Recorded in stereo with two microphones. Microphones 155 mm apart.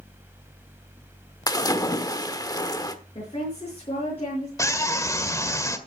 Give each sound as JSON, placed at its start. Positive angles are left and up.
{"t": 1.5, "sound": "a splash", "side_deg": 25, "distance_m": 1.2}
{"t": 3.1, "sound": "a woman speaking", "side_deg": 35, "distance_m": 6.0}
{"t": 4.6, "sound": "a scream", "side_deg": 20, "distance_m": 1.7}